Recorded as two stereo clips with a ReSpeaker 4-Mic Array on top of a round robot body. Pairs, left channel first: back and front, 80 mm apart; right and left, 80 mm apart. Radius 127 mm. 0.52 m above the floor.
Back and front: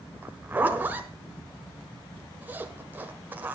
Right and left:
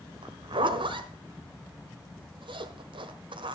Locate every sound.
0.2 s a zipper: 70° left, 1.3 m